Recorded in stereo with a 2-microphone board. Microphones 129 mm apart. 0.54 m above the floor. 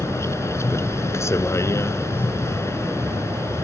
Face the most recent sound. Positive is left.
turn(degrees=20)  # may be behind; listen again after turning